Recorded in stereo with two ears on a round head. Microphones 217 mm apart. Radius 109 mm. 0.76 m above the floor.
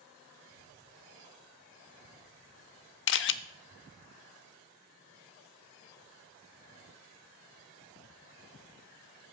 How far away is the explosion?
About 3 m.